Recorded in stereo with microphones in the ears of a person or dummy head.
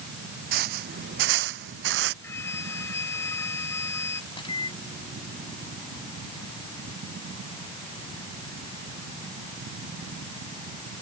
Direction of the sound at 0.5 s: 55° right (ahead or behind).